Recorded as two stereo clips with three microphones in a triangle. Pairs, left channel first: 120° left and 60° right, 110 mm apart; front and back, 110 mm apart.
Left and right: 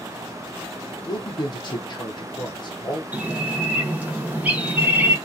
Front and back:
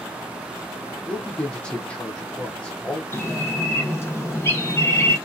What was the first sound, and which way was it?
A man speaking, 80° left.